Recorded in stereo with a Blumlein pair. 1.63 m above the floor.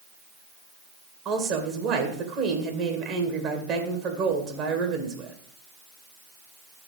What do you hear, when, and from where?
1.2 s a woman speaking: 35° right, 2 m